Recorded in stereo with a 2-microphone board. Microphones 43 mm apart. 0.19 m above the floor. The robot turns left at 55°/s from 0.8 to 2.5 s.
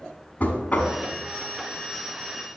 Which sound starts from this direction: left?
Knocking, at 0.4 s.